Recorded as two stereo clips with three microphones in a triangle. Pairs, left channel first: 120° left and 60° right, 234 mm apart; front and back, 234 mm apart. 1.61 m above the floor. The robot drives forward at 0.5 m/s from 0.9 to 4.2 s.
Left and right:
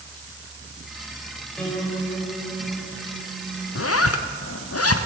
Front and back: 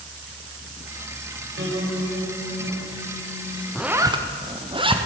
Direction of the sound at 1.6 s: 155° right.